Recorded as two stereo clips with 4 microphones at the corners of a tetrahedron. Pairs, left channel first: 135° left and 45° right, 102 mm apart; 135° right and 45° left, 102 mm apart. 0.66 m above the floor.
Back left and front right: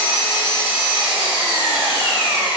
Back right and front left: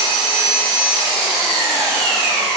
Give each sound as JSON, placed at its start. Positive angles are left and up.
{"t": 0.0, "sound": "an engine running", "azimuth_deg": 15, "distance_m": 1.0}